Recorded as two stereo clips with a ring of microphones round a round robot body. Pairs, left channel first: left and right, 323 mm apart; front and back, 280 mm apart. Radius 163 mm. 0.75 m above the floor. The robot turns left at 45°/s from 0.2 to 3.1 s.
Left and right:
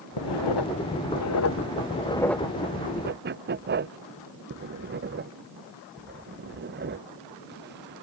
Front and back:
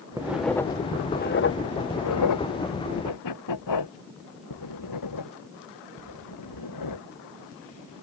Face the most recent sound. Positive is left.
turn(degrees=-30)